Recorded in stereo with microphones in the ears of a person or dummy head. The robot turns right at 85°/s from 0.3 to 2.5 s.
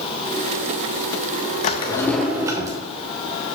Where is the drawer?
130° left, 0.6 m; by 2.8 s 160° right, 0.6 m.